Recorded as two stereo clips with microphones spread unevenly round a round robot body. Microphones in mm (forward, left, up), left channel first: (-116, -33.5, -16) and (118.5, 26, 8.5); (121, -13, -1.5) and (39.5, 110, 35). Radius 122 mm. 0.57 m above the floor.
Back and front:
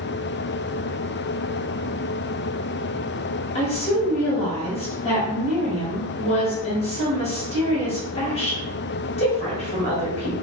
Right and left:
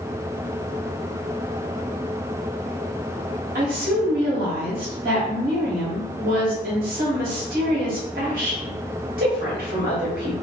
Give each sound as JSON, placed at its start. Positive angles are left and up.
{"t": 3.5, "sound": "a woman speaking", "azimuth_deg": 145, "distance_m": 1.0}